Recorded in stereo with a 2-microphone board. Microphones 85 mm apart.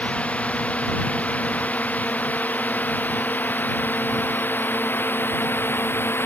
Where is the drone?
15° left (ahead or behind); by 6.3 s 25° left (ahead or behind).